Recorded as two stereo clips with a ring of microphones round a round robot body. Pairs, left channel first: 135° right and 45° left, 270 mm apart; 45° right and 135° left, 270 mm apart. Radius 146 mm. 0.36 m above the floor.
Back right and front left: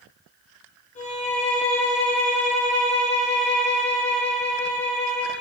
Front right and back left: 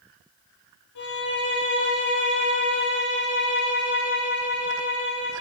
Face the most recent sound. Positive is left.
turn(degrees=-70)